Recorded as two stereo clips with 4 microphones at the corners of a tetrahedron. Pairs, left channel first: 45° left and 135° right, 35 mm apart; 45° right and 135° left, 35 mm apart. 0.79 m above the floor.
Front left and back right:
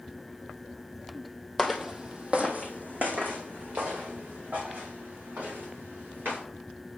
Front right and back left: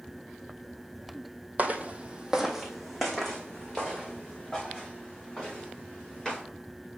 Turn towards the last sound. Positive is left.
turn(degrees=-115)